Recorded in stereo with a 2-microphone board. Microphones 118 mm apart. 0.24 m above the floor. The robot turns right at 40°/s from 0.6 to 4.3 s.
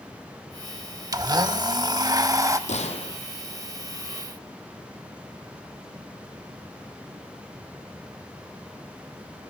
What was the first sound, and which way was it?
A blender, 110° right.